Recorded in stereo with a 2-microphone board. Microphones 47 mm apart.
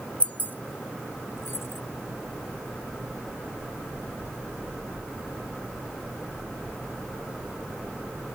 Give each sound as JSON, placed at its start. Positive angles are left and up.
{"t": 0.2, "sound": "keys jangling", "side_deg": 25}